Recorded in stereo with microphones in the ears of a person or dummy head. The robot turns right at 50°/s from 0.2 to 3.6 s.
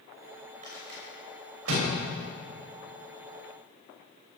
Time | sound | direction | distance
0.6 | a rattle | 45° right (ahead or behind) | 6.5 m